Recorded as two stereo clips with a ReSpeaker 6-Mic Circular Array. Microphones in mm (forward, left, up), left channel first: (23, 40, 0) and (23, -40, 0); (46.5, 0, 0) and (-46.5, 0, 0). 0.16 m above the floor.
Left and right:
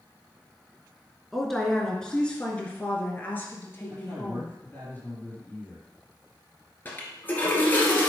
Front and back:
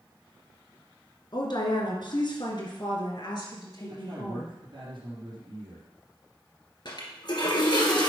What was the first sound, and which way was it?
A woman speaking, straight ahead.